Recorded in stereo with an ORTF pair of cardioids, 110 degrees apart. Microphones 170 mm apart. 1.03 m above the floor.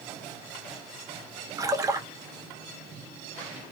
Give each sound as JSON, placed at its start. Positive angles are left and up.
{"t": 1.6, "sound": "a splash", "azimuth_deg": -20, "distance_m": 0.8}